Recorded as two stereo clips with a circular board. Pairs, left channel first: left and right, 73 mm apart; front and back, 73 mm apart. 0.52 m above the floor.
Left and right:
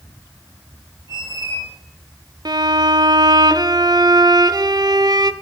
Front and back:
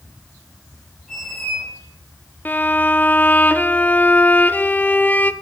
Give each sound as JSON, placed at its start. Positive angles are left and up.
{"t": 1.1, "sound": "a squeak", "azimuth_deg": 80, "distance_m": 6.0}
{"t": 2.5, "sound": "a violin", "azimuth_deg": -65, "distance_m": 0.5}